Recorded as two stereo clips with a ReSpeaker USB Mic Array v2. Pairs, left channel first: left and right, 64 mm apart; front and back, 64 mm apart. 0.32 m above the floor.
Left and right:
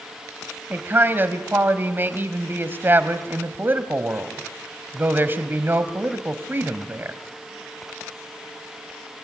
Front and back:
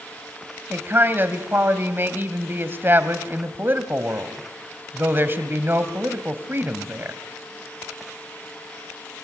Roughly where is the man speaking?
Behind right.